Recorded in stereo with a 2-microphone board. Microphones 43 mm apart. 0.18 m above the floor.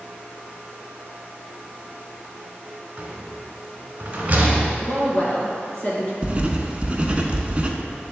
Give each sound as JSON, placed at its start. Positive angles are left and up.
{"t": 3.0, "sound": "a rattle", "side_deg": -35, "distance_m": 1.5}
{"t": 4.8, "sound": "a woman speaking", "side_deg": 35, "distance_m": 2.0}
{"t": 6.2, "sound": "writing", "side_deg": -30, "distance_m": 0.6}